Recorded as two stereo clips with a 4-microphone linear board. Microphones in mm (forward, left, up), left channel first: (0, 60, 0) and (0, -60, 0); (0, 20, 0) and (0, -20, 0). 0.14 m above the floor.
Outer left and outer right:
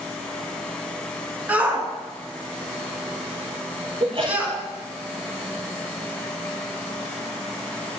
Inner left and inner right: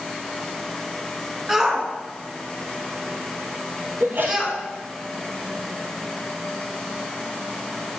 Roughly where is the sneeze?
Right.